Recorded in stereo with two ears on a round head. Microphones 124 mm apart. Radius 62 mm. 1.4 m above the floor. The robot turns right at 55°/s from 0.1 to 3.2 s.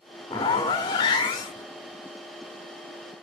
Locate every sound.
0.3 s a zipper: 50° left, 1.0 m; by 1.7 s 125° left, 1.0 m